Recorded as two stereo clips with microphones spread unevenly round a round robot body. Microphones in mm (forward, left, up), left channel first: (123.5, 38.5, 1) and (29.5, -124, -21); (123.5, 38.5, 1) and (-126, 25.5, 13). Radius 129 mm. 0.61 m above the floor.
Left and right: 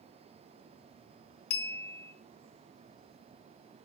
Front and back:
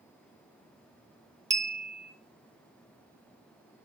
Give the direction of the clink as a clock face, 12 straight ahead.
8 o'clock.